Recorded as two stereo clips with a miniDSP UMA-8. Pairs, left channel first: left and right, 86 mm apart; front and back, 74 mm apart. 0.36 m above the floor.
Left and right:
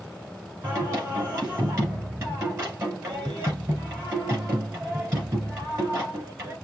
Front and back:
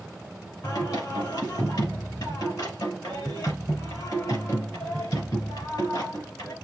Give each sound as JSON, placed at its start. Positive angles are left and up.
{"t": 0.6, "sound": "singing", "azimuth_deg": -35, "distance_m": 5.0}